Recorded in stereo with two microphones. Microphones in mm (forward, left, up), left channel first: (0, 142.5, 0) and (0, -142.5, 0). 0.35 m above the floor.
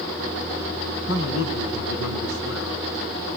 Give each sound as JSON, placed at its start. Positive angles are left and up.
{"t": 1.1, "sound": "a man speaking", "side_deg": 60, "distance_m": 3.0}